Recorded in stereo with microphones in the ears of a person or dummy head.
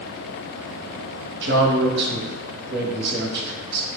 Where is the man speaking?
60° right (ahead or behind), 0.8 m.